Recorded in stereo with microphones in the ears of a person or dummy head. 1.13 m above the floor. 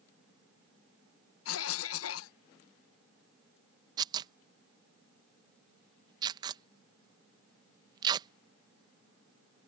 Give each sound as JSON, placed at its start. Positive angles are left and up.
{"t": 1.4, "sound": "a cough", "side_deg": 70}
{"t": 4.0, "sound": "tearing paper", "side_deg": -25}